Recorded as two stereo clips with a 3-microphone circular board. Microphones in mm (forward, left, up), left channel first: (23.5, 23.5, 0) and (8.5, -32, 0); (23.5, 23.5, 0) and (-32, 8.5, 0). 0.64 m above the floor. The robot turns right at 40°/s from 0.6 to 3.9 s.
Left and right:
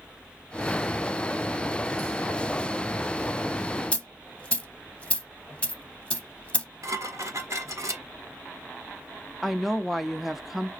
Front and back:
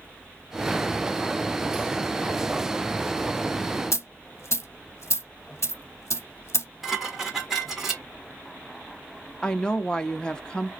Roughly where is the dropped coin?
Ahead.